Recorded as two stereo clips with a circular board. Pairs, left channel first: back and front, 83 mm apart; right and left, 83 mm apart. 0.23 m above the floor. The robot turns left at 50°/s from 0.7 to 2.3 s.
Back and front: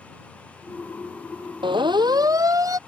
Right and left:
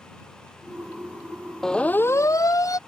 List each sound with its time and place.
1.6 s a siren: 5° right; by 2.8 s 45° right